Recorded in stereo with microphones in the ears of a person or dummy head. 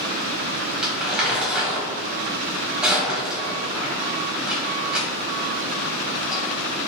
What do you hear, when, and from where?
0.8 s crumpling: centre (ahead or behind), 1.3 m